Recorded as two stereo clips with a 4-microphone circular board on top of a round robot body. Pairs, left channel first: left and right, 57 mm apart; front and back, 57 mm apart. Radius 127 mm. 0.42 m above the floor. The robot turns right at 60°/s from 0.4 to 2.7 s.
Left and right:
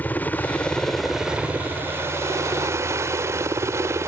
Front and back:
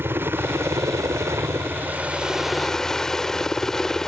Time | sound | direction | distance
0.0 | a helicopter | 140° left | ?